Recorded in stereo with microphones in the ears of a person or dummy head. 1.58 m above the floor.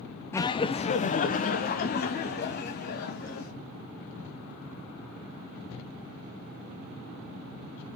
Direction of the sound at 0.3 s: 15° left (ahead or behind).